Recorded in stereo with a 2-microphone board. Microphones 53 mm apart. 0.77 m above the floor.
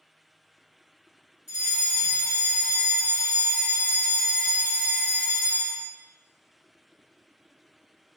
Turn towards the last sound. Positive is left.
turn(degrees=-15)  # may be behind; listen again after turning